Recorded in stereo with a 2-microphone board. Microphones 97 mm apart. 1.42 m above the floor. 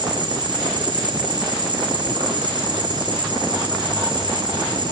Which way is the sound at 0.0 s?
50° right (ahead or behind).